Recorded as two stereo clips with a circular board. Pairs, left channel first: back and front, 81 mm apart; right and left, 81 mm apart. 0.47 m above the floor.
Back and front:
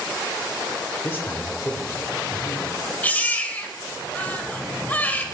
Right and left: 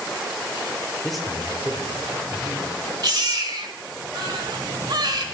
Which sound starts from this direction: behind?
A man speaking, at 1.0 s.